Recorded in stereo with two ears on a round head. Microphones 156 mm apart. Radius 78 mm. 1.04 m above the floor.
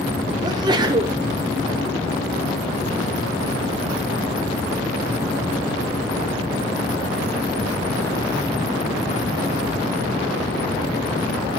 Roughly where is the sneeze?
Right.